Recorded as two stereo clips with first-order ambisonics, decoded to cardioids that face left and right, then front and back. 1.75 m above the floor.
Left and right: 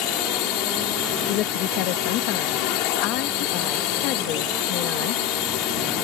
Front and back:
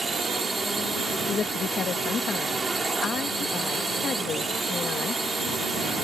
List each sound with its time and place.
0.0 s a drone: 100° left
1.3 s a woman speaking: 60° left